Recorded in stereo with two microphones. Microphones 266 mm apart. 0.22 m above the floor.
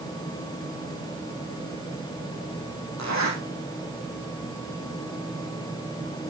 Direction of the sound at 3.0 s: 85° right.